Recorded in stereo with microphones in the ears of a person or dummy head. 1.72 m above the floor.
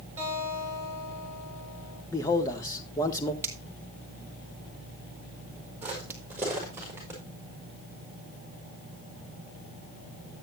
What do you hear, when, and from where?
0.2 s a guitar: 15° right (ahead or behind), 7.5 m
2.1 s a man speaking: 20° left (ahead or behind), 1.6 m
3.4 s a finger snap: 15° right (ahead or behind), 1.5 m
5.8 s footsteps: 10° right (ahead or behind), 4.5 m; by 7.2 s 20° right (ahead or behind), 5.5 m